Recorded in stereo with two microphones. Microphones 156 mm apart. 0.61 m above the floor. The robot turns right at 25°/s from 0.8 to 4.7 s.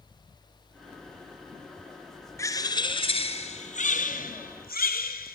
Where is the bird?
20° left, 1.6 m; by 5.4 s 75° left, 1.6 m.